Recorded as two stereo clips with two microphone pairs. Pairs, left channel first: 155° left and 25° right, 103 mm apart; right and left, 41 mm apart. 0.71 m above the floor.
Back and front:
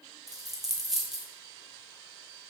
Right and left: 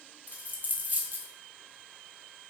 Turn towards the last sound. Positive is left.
turn(degrees=65)